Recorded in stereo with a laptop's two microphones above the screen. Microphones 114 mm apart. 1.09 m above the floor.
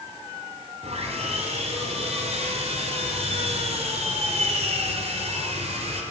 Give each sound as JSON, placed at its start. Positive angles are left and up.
{"t": 0.8, "sound": "sawing", "side_deg": -70, "distance_m": 4.0}